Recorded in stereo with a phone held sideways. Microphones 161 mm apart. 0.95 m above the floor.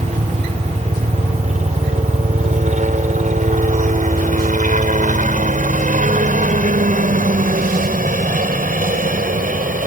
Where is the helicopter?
45° right (ahead or behind); by 9.9 s 55° right (ahead or behind).